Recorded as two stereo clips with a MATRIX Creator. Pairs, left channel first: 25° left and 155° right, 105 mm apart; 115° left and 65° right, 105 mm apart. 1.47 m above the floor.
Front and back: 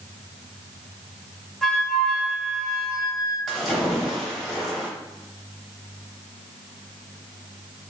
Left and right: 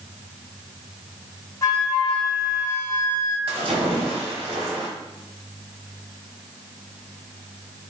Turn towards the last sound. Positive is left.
turn(degrees=-65)